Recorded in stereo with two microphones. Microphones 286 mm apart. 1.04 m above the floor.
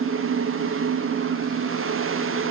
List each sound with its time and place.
Only background noise.